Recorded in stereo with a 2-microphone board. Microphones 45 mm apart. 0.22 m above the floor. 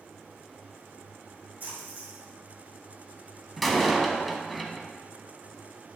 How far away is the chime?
No chime in this recording.